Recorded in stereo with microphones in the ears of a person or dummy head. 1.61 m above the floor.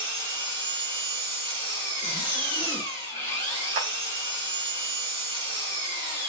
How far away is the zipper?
About 1.3 m.